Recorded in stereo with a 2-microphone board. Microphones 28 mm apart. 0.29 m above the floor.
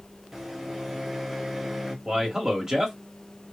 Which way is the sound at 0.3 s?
15° right (ahead or behind).